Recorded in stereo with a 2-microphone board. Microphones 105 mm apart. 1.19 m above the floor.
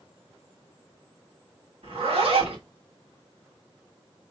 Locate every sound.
1.8 s a zipper: 65° right (ahead or behind), 1.8 m